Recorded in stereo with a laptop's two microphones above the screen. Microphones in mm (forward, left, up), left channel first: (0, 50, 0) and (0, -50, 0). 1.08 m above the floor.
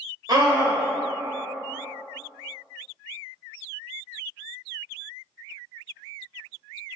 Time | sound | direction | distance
0.3 | a scream | 40° right (ahead or behind) | 0.9 m